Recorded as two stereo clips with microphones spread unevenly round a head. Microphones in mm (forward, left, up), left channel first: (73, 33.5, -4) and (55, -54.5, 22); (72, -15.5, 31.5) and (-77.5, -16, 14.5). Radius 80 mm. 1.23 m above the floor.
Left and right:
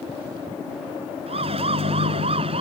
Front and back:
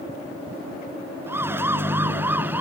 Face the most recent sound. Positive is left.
turn(degrees=-100)